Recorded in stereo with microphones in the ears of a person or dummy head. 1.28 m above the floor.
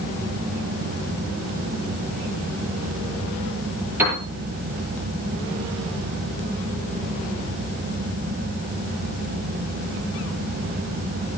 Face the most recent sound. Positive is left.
turn(degrees=-10)  # may be behind; listen again after turning